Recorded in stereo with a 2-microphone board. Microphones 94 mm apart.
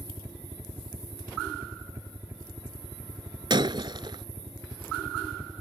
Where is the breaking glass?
55° right (ahead or behind).